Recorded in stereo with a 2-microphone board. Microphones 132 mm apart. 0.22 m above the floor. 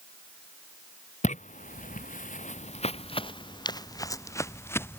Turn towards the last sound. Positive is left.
turn(degrees=15)  # may be behind; listen again after turning